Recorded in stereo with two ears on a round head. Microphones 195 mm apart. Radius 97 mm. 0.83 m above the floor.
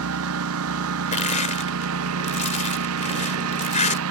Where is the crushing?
35° left (ahead or behind).